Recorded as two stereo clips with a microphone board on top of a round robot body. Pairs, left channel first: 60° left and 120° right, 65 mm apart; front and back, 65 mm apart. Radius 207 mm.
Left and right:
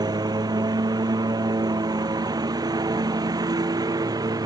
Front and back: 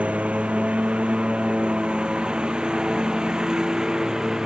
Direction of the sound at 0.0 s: 110° right.